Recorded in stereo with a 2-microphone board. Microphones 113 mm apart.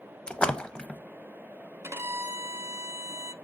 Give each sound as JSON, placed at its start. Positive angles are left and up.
{"t": 0.3, "sound": "a splash", "side_deg": 10, "distance_m": 0.6}
{"t": 1.8, "sound": "a violin", "side_deg": -20, "distance_m": 0.6}